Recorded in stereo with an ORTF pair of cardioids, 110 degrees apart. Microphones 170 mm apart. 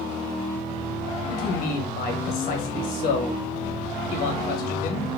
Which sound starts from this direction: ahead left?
A man speaking, at 1.3 s.